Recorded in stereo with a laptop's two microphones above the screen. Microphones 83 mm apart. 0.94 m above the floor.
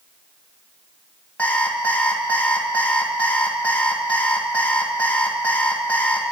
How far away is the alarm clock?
About 2 m.